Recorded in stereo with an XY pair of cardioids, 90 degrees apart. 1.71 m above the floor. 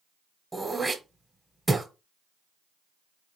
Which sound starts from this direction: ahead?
Throat clearing, at 0.5 s.